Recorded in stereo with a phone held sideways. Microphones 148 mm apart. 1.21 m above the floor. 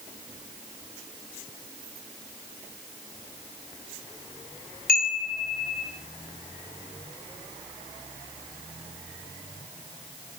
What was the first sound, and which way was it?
A chime, 65° left (ahead or behind).